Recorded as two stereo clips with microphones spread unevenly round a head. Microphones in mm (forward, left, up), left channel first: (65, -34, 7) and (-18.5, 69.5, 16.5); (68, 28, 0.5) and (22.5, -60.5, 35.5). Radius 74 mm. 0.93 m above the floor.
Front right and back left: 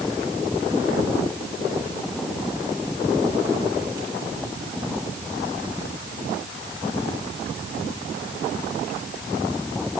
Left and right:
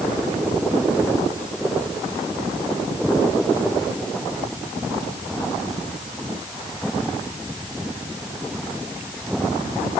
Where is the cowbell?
I don't hear a cowbell.